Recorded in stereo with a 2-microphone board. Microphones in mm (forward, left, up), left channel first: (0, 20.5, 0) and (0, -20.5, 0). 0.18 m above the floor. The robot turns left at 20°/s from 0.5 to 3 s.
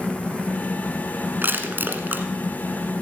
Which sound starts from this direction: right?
Crushing, at 1.4 s.